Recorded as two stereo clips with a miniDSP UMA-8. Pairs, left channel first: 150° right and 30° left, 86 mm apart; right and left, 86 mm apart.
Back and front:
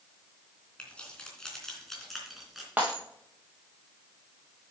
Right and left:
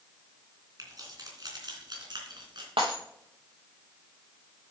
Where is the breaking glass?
105° left, 4 m.